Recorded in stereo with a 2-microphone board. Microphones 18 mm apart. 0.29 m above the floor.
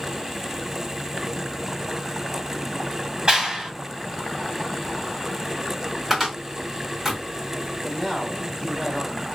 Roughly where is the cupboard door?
Centre.